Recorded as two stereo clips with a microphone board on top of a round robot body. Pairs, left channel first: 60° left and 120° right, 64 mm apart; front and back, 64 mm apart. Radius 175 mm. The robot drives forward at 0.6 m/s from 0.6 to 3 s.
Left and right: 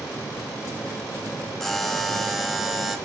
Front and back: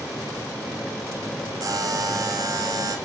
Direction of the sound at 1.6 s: 150° left.